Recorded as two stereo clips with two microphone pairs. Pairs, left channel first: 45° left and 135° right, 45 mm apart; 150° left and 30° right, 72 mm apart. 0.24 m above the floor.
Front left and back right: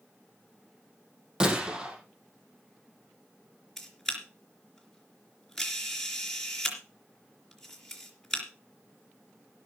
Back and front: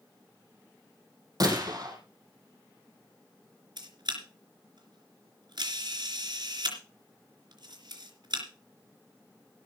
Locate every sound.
1.4 s a gunshot: 65° right, 4 m
3.8 s a camera shutter: 35° right, 3.5 m